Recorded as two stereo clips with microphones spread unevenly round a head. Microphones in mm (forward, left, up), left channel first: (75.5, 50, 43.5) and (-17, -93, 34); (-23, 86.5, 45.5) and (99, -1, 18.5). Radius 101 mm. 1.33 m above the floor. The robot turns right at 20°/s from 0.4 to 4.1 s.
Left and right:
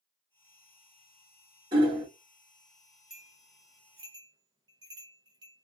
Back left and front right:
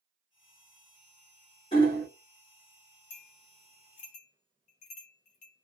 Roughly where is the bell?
Behind left.